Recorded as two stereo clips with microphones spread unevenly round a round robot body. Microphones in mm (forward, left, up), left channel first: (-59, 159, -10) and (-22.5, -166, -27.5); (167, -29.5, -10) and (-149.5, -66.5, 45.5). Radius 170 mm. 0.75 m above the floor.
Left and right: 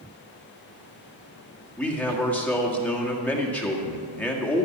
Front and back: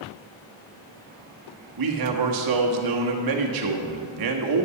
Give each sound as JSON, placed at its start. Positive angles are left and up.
{"t": 1.8, "sound": "a man speaking", "azimuth_deg": -175, "distance_m": 1.7}